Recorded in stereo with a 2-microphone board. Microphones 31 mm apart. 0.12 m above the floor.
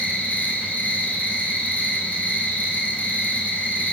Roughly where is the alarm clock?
No alarm clock in this recording.